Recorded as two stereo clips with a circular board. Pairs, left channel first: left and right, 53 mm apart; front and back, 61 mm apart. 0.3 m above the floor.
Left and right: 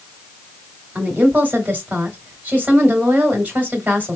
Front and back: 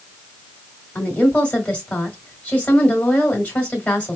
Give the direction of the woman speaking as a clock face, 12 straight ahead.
2 o'clock.